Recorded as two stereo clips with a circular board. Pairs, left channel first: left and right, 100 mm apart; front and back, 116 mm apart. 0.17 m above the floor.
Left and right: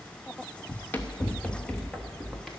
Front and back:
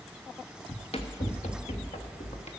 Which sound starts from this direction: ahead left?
Running footsteps, at 0.7 s.